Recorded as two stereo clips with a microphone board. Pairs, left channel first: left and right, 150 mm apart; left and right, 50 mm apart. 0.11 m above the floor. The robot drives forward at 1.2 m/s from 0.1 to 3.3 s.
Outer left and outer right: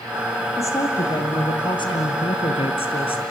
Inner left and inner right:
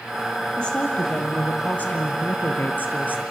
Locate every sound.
0.6 s a woman speaking: 20° left (ahead or behind), 3.5 m; by 3.2 s 40° left (ahead or behind), 1.8 m